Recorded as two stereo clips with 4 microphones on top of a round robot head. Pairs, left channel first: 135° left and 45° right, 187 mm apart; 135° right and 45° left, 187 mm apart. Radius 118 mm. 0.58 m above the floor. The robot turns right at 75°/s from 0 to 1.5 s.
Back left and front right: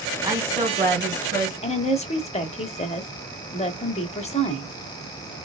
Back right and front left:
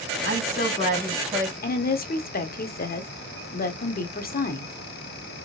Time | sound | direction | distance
0.2 | a woman speaking | 120° right | 2.5 m
1.6 | a woman speaking | 170° right | 1.2 m